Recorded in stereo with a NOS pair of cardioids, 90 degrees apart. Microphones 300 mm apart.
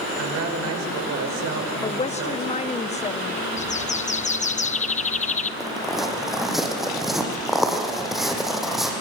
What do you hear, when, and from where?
0.2 s a woman speaking: 60° right, 5.5 m
1.8 s a woman speaking: 20° left, 1.3 m
3.6 s a bird: 25° left, 1.0 m
5.6 s footsteps: straight ahead, 5.5 m